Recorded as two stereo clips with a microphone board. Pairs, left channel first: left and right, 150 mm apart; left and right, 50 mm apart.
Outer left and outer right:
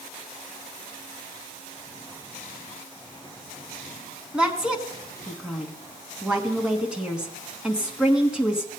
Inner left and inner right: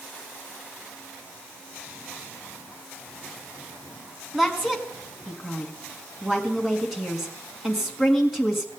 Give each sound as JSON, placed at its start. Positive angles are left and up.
{"t": 4.3, "sound": "a woman speaking", "side_deg": -5, "distance_m": 1.5}